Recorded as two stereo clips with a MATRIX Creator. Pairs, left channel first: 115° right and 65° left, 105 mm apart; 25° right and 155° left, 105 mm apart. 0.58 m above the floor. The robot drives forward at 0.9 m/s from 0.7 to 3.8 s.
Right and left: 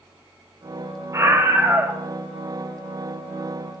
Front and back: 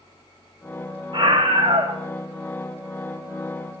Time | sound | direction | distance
1.1 | a scream | 125° left | 1.8 m